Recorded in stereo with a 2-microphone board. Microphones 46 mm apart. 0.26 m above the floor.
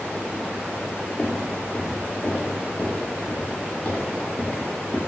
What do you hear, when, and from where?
1.2 s footsteps: 55° left (ahead or behind), 1.7 m; by 5.0 s 20° left (ahead or behind), 3.5 m